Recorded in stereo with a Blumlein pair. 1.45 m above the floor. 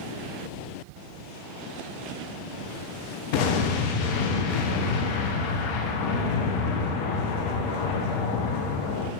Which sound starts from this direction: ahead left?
An explosion, at 3.3 s.